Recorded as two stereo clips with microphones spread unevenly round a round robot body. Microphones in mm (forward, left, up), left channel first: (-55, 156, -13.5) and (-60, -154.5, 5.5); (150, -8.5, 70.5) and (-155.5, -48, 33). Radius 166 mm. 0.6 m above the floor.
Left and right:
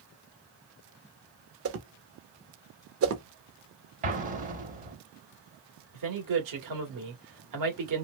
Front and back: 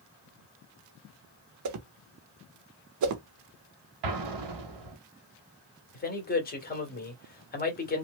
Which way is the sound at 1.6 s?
140° right.